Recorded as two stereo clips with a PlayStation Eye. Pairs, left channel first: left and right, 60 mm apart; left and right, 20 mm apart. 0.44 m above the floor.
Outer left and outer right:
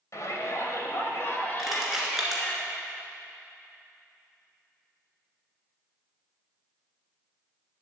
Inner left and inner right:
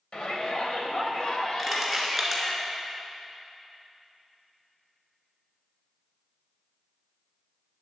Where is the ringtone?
I don't hear a ringtone.